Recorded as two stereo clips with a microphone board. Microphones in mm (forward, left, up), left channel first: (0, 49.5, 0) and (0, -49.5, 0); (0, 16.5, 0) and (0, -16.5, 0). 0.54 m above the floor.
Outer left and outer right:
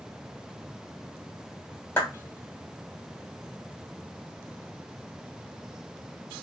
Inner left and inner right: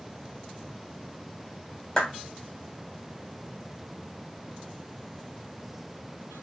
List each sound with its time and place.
2.0 s a clap: 20° left (ahead or behind), 1.8 m